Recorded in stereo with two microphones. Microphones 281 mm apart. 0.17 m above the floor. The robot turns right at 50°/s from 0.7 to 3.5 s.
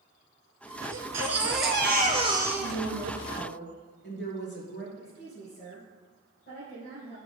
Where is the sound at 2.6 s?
85° left, 3 m; by 4.9 s 130° left, 3 m.